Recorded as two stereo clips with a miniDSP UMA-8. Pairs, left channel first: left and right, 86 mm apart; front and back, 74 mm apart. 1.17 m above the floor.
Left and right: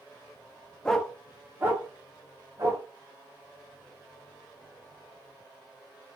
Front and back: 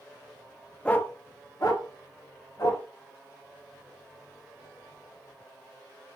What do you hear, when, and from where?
0.8 s a dog barking: 35° left, 0.5 m; by 2.8 s 35° right, 2.5 m